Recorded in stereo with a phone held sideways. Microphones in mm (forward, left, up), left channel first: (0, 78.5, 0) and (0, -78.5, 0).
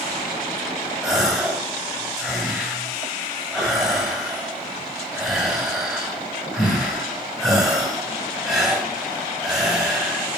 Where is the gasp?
5° right (ahead or behind), 3 m.